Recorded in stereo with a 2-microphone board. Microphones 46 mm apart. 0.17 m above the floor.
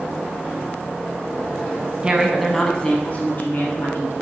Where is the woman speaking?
20° right (ahead or behind), 1.0 m; by 4.1 s 55° left (ahead or behind), 1.7 m.